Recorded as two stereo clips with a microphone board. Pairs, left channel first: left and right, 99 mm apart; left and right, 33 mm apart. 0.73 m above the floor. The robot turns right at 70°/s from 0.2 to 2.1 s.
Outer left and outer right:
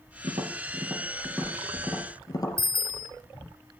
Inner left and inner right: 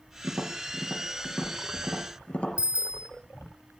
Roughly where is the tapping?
Right.